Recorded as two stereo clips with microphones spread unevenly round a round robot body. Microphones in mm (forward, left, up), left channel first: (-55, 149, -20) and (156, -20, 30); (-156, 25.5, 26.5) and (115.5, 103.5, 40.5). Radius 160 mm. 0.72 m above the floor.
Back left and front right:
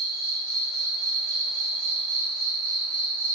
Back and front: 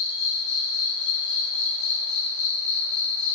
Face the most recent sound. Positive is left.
turn(degrees=-165)